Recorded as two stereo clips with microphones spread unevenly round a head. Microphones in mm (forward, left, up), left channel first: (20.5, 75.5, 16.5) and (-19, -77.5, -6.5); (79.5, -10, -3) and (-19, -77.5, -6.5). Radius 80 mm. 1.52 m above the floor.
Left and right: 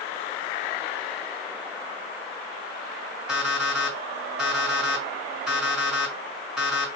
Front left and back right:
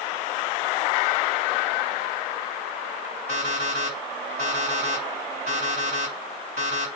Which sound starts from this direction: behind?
An alarm clock, at 3.3 s.